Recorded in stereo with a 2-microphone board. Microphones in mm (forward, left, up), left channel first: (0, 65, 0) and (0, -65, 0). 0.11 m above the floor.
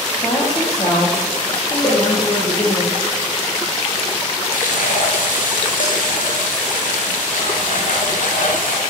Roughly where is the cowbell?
Left.